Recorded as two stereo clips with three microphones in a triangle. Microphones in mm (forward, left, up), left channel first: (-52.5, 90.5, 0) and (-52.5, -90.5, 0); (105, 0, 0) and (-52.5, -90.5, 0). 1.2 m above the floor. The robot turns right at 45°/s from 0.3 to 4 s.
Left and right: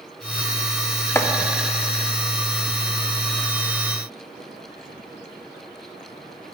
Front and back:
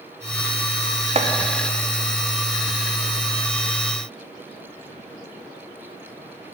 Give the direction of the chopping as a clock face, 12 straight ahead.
7 o'clock.